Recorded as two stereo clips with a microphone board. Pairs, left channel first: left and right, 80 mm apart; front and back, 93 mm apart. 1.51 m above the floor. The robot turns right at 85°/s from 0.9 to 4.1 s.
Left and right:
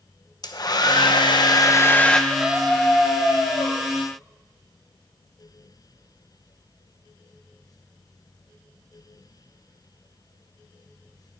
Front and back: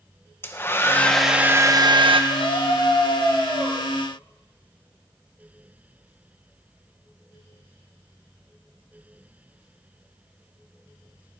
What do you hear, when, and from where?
0.4 s a hair dryer: 65° left, 0.8 m; by 2.2 s 175° left, 0.8 m
2.3 s a scream: 25° right, 3 m; by 3.8 s 105° left, 3 m